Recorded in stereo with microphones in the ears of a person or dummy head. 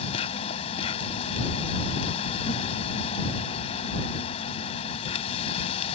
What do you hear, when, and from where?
0.0 s an insect: 35° left (ahead or behind)